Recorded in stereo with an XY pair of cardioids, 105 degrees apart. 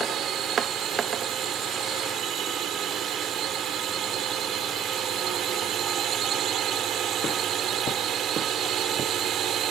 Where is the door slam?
No door slam in this recording.